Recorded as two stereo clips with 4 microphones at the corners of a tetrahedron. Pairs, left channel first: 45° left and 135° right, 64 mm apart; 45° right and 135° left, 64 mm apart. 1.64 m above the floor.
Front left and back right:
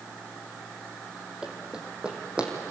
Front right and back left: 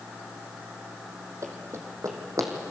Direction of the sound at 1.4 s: 150° left.